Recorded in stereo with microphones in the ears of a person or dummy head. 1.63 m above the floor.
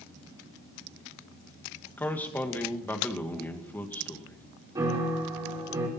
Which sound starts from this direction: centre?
A man speaking, at 2.0 s.